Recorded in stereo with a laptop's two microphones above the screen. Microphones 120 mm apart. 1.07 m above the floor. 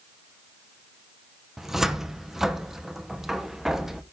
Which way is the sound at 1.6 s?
5° right (ahead or behind).